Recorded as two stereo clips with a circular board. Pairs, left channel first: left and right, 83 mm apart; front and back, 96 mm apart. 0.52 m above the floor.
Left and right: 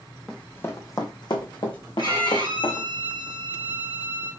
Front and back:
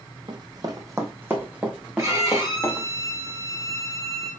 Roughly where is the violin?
Behind left.